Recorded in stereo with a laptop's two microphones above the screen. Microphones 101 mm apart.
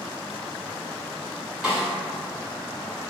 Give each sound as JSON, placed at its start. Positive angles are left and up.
{"t": 1.6, "sound": "a snare drum", "side_deg": -10, "distance_m": 1.3}